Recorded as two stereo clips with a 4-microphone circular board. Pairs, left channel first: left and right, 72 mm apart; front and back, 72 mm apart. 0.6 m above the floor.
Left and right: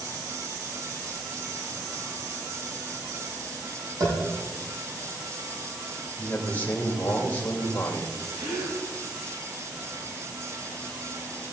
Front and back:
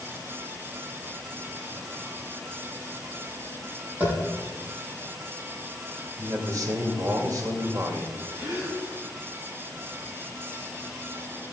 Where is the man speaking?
155° left, 2.5 m.